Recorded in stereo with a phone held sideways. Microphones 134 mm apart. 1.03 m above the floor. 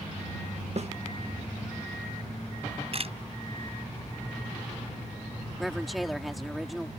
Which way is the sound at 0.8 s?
55° right (ahead or behind).